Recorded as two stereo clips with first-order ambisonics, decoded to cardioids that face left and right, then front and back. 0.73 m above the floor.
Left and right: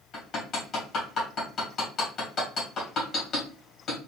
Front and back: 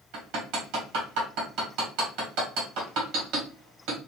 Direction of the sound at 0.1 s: 150° left.